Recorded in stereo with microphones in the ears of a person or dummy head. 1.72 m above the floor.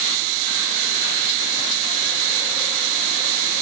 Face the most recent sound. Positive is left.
No sound to turn to.